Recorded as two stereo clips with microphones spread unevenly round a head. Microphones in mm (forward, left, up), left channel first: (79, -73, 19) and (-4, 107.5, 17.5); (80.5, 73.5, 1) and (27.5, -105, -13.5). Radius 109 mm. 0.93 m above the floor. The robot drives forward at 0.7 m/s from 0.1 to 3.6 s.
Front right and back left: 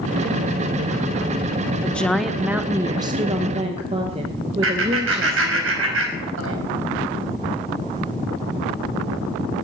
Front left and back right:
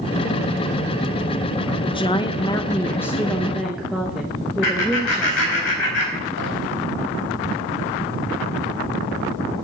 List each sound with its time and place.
1.8 s a woman speaking: 15° left, 0.9 m; by 5.6 s 165° left, 1.0 m
4.6 s laughter: 95° left, 4.5 m